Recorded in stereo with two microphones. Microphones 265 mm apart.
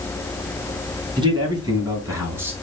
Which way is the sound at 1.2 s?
15° right (ahead or behind).